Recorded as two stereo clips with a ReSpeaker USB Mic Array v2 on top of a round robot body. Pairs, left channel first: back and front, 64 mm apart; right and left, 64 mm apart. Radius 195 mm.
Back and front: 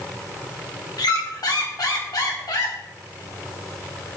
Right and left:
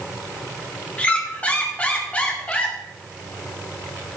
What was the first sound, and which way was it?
A squeak, 160° right.